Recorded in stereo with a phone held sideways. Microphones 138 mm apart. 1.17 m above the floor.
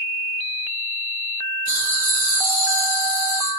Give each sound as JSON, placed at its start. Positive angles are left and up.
{"t": 1.7, "sound": "laughter", "side_deg": -65, "distance_m": 0.8}